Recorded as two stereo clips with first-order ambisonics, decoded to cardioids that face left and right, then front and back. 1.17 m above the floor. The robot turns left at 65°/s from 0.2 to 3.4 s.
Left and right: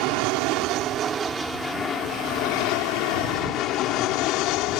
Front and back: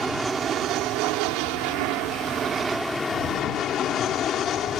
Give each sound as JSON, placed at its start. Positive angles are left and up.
{"t": 0.0, "sound": "an aircraft", "azimuth_deg": -95}